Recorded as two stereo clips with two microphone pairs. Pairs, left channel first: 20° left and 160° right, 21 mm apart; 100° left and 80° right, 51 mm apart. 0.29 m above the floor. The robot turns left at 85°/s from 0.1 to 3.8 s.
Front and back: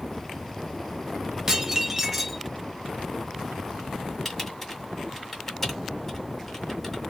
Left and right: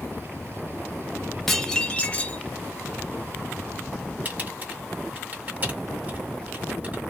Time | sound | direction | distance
1.5 | dishes clattering | straight behind | 0.6 m
4.2 | typing on a keyboard | 45° right | 1.3 m